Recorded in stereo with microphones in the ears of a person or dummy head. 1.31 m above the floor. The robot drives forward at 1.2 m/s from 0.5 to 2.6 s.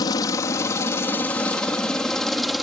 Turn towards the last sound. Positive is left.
turn(degrees=0)  # may be behind; listen again after turning